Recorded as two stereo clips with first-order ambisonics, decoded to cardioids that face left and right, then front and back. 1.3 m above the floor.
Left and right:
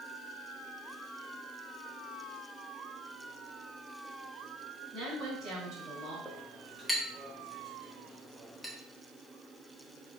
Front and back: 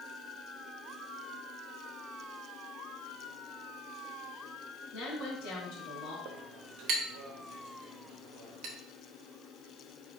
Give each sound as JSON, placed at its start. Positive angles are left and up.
{"t": 4.9, "sound": "a woman speaking", "azimuth_deg": -30, "distance_m": 2.5}
{"t": 6.2, "sound": "a clink", "azimuth_deg": 180, "distance_m": 0.9}